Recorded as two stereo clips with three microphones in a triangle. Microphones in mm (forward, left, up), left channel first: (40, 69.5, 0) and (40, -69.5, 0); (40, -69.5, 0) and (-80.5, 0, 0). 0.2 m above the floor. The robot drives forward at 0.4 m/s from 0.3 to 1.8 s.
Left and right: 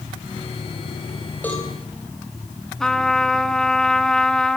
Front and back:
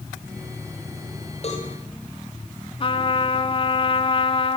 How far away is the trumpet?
About 1.4 m.